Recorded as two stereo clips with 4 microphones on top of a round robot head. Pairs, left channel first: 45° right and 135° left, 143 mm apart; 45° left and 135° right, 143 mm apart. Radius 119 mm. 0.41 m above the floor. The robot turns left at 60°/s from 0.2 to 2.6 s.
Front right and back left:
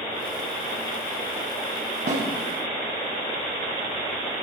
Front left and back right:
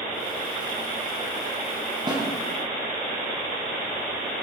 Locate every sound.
2.1 s a snare drum: 165° left, 3.5 m; by 2.2 s 155° left, 3.5 m